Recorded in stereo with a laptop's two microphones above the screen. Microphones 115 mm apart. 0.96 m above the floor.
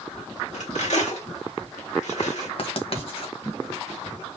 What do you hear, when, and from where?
0.5 s cutlery clinking: 85° left, 1.9 m
2.6 s writing: 55° left (ahead or behind), 1.4 m